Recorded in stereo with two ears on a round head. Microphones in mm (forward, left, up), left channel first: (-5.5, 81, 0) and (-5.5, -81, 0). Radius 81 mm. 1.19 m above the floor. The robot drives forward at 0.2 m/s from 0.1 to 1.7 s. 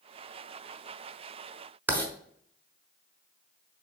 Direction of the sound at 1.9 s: 10° right (ahead or behind).